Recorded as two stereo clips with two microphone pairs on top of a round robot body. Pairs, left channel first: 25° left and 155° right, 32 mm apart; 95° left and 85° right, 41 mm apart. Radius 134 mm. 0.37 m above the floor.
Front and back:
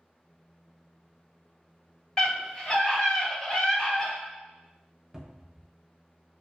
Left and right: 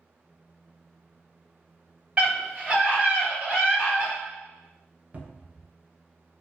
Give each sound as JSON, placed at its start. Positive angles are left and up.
{"t": 2.2, "sound": "a scream", "azimuth_deg": -35, "distance_m": 1.7}
{"t": 5.1, "sound": "a cupboard door", "azimuth_deg": -90, "distance_m": 0.6}